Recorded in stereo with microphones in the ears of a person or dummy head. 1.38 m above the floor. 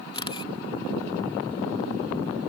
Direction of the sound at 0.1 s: 30° left (ahead or behind).